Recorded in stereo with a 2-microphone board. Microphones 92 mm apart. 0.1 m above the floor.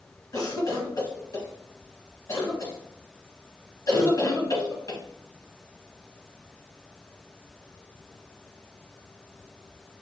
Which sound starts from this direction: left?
A cough, at 0.3 s.